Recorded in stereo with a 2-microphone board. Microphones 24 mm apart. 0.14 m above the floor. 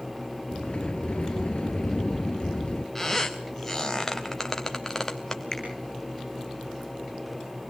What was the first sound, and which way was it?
A sliding door, 50° left (ahead or behind).